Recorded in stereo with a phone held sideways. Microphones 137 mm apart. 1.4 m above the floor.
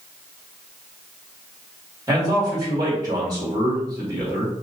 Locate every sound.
2.1 s a man speaking: 30° right (ahead or behind), 2.5 m